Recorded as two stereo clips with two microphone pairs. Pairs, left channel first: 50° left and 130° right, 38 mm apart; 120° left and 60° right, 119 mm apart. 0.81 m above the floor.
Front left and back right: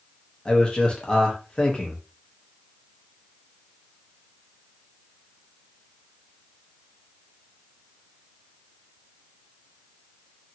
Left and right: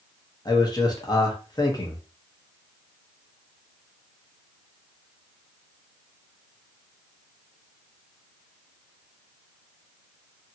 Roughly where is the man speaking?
Left.